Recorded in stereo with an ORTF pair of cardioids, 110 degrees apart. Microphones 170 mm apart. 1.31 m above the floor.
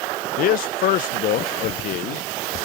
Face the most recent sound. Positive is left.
turn(degrees=60)